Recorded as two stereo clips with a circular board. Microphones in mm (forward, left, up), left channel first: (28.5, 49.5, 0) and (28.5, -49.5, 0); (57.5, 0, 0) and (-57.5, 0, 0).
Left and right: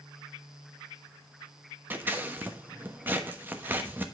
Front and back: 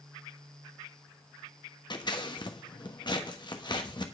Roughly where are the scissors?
Ahead right.